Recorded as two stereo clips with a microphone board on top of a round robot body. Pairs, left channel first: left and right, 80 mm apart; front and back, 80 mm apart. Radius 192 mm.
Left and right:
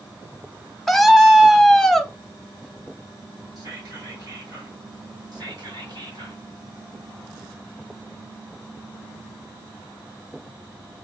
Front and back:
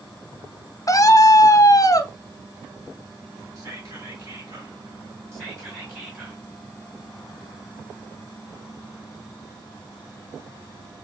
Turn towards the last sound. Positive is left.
turn(degrees=-125)